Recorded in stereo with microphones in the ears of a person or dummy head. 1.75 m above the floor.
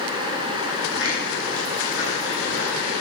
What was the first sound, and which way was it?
Footsteps, 60° left (ahead or behind).